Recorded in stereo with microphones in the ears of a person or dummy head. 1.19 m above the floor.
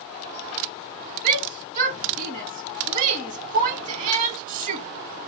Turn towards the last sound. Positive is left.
turn(degrees=-40)  # may be behind; listen again after turning